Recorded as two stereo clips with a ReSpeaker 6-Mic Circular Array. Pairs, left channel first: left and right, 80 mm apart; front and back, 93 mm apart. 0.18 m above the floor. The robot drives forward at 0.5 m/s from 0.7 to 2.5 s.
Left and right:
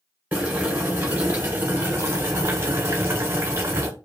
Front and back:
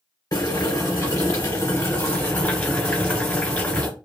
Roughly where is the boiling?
Ahead right.